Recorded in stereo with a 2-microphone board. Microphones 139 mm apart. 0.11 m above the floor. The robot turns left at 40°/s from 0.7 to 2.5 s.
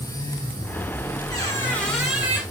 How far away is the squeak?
About 4.5 m.